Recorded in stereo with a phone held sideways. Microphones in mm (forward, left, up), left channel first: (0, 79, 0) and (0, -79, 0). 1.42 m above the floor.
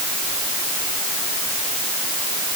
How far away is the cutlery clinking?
I don't hear cutlery clinking.